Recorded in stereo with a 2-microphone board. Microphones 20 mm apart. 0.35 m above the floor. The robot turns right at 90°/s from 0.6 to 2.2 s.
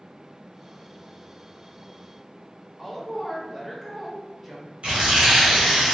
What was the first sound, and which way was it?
A woman speaking, 10° right (ahead or behind).